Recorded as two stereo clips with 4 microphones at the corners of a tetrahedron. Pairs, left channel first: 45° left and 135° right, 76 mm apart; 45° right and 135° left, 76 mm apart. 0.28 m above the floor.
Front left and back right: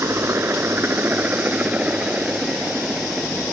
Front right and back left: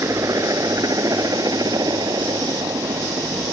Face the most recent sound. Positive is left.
turn(degrees=145)